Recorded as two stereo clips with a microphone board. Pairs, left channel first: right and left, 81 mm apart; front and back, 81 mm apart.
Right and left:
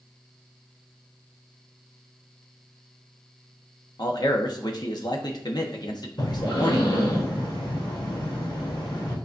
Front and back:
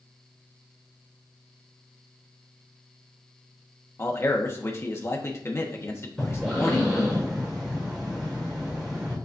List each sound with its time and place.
4.0 s a man speaking: 55° right, 1.2 m
6.2 s breathing: 100° right, 3.5 m